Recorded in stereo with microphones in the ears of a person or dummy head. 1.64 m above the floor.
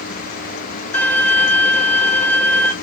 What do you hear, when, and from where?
0.9 s a violin: 10° left (ahead or behind), 0.6 m